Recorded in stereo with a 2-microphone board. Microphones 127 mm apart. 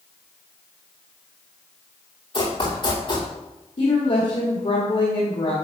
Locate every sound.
2.3 s running footsteps: 45° left (ahead or behind), 3 m
3.8 s a woman speaking: 60° left (ahead or behind), 1.6 m